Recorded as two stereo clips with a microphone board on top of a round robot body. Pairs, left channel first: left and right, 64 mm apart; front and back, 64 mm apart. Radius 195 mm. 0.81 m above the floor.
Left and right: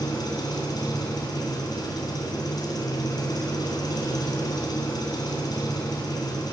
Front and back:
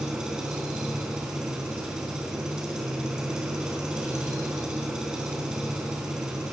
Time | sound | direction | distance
0.0 | an engine running | 100° left | 3 m